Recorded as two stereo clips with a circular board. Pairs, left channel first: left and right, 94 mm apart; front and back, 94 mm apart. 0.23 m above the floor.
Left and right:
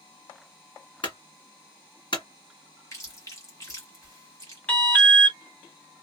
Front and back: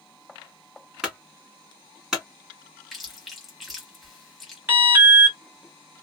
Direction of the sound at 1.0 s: 100° left.